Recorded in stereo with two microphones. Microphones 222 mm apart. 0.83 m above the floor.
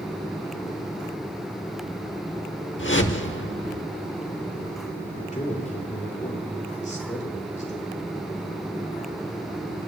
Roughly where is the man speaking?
Left.